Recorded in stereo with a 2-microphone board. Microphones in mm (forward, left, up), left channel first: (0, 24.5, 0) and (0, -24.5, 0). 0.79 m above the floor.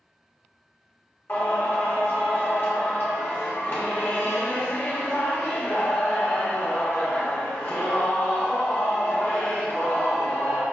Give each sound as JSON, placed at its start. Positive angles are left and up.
{"t": 1.3, "sound": "singing", "side_deg": 50, "distance_m": 1.3}